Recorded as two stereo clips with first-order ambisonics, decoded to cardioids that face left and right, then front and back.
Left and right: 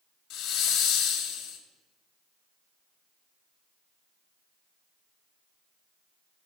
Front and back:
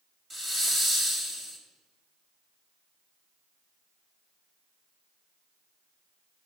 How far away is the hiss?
About 1.2 m.